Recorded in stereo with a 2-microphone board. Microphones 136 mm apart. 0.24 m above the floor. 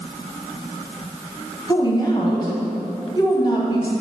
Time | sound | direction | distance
1.7 | a woman speaking | 35° left (ahead or behind) | 1.2 m